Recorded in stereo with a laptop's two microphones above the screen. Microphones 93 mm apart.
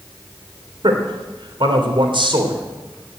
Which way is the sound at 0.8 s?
60° right (ahead or behind).